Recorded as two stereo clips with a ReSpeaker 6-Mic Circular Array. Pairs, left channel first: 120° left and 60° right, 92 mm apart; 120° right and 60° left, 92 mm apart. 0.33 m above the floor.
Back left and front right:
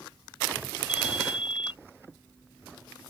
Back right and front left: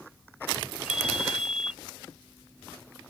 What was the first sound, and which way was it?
A ringtone, 140° left.